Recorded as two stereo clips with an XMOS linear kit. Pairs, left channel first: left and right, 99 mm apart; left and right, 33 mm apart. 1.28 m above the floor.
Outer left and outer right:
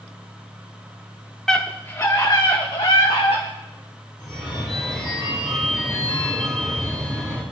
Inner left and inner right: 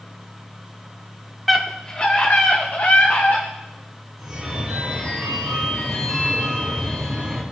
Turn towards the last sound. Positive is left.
turn(degrees=5)  # may be behind; listen again after turning